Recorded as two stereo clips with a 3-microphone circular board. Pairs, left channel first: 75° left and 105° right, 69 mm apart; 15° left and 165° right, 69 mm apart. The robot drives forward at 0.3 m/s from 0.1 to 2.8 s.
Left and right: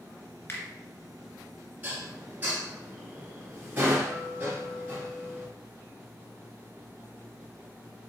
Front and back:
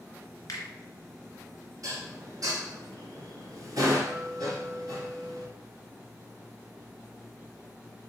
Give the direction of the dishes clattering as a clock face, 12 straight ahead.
5 o'clock.